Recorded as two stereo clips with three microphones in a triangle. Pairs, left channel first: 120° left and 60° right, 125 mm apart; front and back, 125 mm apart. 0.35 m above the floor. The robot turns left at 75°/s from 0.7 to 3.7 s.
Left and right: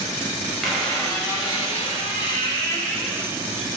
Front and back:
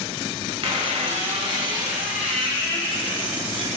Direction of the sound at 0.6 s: 150° right.